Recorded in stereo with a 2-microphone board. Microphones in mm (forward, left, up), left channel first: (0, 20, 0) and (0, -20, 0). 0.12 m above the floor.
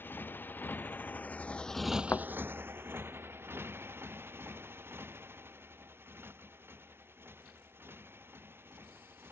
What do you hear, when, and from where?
0.0 s a motorcycle: 65° left (ahead or behind); by 9.3 s 80° right
2.1 s a thud: 65° left (ahead or behind)